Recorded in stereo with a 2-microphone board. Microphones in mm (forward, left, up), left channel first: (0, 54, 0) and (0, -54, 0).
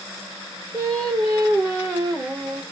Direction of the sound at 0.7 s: 25° right (ahead or behind).